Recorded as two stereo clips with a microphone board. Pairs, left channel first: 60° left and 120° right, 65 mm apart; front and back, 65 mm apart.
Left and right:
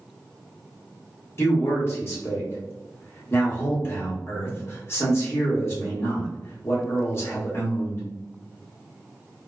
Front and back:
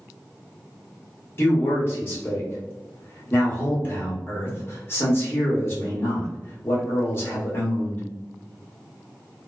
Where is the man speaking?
35° left, 1.1 m.